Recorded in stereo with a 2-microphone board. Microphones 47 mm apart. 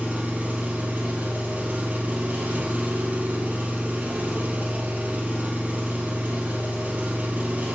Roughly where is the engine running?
Right.